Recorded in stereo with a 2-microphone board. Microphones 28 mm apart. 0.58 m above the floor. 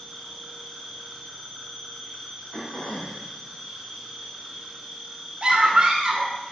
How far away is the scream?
About 1.4 m.